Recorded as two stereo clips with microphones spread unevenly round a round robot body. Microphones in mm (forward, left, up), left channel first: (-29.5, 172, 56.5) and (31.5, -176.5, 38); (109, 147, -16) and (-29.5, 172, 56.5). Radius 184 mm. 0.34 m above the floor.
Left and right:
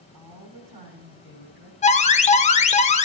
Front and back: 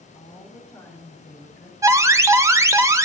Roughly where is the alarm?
Ahead left.